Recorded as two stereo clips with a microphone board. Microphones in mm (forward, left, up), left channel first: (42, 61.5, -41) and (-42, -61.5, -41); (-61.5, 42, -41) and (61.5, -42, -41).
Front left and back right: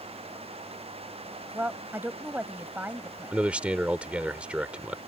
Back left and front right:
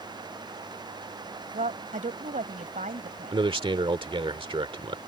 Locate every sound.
1.5 s a woman speaking: 50° right
3.3 s a man speaking: 50° right